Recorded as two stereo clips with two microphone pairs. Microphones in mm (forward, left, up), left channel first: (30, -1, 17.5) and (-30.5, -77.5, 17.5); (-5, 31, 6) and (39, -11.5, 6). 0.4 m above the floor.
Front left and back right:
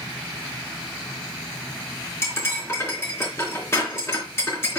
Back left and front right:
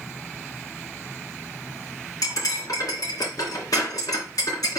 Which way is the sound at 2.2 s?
115° left.